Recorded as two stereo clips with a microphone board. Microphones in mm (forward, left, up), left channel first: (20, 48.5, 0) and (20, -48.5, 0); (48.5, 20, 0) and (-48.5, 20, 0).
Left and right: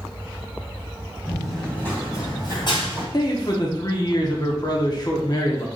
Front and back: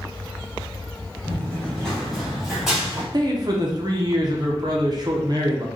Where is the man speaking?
135° left, 0.9 m.